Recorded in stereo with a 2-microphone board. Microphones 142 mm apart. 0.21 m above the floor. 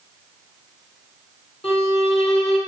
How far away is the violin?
About 1.8 m.